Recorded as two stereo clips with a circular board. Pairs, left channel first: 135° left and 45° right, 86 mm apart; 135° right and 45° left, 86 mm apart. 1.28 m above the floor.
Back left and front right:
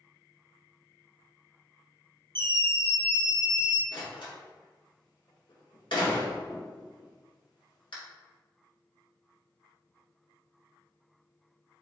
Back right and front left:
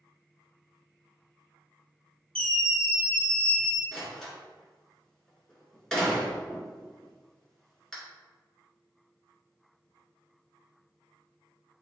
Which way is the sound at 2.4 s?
60° right.